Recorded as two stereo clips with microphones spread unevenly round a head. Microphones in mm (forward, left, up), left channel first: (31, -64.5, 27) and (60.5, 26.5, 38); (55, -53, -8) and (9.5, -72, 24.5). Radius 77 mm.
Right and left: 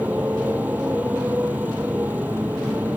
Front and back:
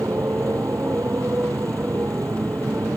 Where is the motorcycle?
150° left.